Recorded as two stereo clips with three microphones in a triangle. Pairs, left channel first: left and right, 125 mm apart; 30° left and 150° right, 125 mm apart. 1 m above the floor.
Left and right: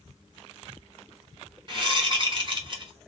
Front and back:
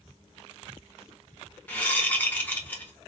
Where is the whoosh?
45° right, 0.9 m.